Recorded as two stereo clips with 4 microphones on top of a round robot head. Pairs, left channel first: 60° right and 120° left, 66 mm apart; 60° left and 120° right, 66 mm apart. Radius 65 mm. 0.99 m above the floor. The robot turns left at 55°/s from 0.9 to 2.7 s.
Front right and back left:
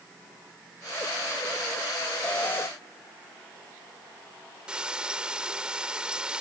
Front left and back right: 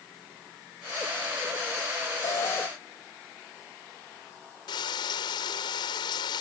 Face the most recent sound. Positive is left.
turn(degrees=45)